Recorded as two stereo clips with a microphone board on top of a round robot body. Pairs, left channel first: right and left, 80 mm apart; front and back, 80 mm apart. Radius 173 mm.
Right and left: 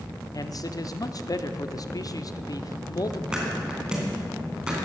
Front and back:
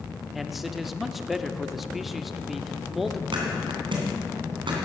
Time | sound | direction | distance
0.3 | a man speaking | 90° right | 1.0 m
3.3 | a thud | 170° left | 2.5 m